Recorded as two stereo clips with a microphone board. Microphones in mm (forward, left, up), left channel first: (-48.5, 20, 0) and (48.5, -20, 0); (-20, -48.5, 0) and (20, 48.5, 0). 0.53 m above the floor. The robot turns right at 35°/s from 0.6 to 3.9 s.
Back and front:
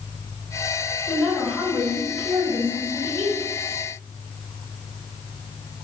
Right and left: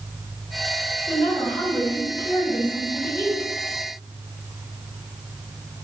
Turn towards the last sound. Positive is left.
turn(degrees=-35)